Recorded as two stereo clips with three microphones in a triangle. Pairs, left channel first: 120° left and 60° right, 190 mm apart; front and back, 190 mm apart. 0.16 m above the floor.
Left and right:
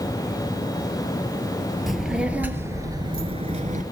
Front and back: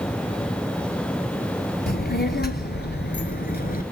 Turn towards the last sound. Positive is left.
turn(degrees=-25)